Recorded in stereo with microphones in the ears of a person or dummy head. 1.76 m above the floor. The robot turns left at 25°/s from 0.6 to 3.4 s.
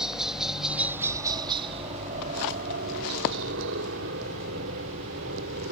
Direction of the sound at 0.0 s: 5° right (ahead or behind).